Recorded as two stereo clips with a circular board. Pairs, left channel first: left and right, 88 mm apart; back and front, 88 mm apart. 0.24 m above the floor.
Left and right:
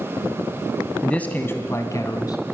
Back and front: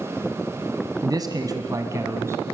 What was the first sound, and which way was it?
A man speaking, 15° left.